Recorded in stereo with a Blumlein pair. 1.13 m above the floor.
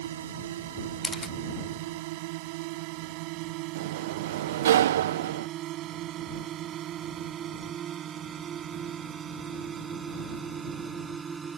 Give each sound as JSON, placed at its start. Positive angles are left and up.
{"t": 0.0, "sound": "a drone", "azimuth_deg": -60}
{"t": 1.0, "sound": "a camera shutter", "azimuth_deg": 10}
{"t": 3.8, "sound": "a sliding door", "azimuth_deg": -60}